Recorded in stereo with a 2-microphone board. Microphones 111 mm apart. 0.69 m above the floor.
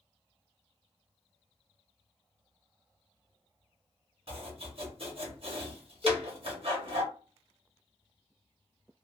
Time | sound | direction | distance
4.3 | chopping | 55° right (ahead or behind) | 1.3 m
6.0 | a cowbell | centre (ahead or behind) | 0.9 m